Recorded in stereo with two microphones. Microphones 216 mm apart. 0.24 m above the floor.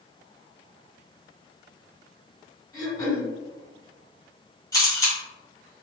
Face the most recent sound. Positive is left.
turn(degrees=15)  # may be behind; listen again after turning